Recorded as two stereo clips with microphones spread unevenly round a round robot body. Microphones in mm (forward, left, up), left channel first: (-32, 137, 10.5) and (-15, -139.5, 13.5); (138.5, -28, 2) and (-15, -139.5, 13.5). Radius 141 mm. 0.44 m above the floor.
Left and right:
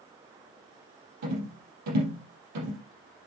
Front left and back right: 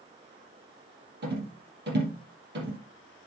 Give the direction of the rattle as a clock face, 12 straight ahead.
4 o'clock.